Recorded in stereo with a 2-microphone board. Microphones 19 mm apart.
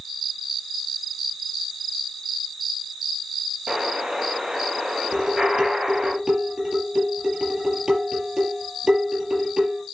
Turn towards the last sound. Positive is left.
turn(degrees=-30)  # may be behind; listen again after turning